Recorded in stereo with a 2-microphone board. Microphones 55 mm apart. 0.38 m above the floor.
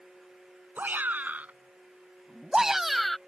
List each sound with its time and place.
0.8 s a shout: 35° right (ahead or behind); by 3.2 s 5° left (ahead or behind)